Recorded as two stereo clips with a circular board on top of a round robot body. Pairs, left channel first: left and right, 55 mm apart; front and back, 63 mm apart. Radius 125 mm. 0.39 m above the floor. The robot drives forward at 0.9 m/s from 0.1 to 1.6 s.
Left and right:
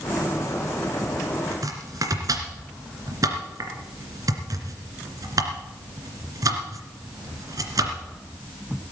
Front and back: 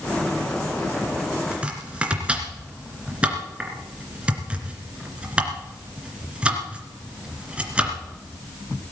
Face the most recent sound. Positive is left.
turn(degrees=-105)